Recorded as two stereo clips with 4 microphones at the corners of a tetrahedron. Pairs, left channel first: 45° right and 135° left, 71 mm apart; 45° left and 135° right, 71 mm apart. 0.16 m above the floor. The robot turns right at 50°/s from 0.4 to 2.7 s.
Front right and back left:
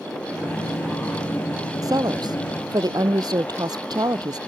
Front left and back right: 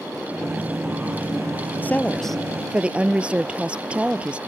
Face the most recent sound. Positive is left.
turn(degrees=150)